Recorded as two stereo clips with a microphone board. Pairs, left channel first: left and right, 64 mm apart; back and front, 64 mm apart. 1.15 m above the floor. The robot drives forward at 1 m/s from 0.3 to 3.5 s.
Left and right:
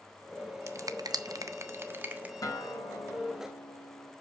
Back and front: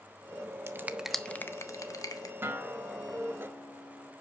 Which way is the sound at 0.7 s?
50° right.